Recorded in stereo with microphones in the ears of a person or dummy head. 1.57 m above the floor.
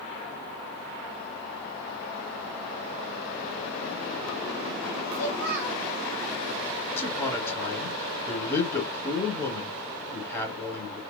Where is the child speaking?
55° right (ahead or behind), 1.2 m.